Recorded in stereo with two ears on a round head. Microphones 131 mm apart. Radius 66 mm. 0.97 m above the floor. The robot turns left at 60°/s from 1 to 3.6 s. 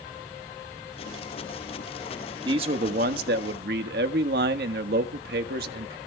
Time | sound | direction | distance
2.5 | a man speaking | 30° right | 1.5 m